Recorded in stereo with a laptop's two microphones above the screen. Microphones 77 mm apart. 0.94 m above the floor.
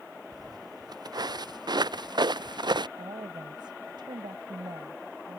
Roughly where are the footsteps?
Right.